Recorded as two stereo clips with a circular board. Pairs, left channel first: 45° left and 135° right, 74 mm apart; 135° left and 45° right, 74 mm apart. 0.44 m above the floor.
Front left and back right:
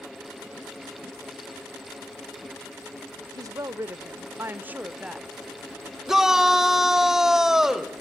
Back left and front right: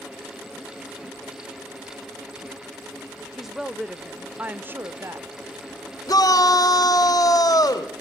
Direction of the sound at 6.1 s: 145° left.